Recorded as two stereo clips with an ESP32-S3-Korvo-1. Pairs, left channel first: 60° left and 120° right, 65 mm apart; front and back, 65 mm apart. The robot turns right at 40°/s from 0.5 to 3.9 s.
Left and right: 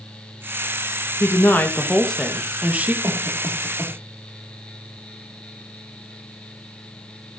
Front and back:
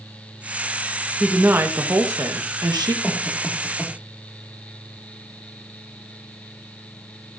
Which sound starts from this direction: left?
A woman speaking, at 1.2 s.